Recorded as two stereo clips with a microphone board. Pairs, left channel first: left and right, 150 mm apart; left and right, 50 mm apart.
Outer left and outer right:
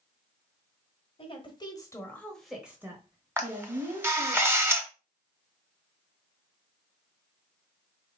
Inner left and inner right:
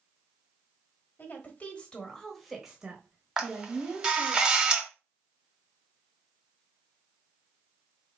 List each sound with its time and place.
1.2 s a woman speaking: 40° left (ahead or behind), 1.3 m; by 4.4 s 50° right (ahead or behind), 1.6 m
3.4 s a camera shutter: 15° right (ahead or behind), 0.9 m